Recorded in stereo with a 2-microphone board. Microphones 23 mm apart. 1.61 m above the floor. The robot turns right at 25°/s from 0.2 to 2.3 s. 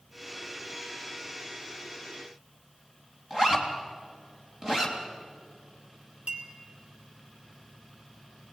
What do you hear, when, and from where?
3.3 s a zipper: 25° right (ahead or behind), 3 m
6.3 s a clink: 55° right (ahead or behind), 3.5 m